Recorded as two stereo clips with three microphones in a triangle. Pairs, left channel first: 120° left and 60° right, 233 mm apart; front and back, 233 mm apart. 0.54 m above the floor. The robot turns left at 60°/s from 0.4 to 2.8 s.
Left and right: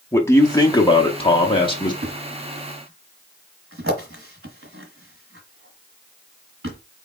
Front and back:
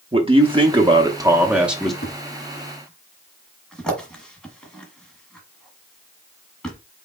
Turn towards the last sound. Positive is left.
turn(degrees=-85)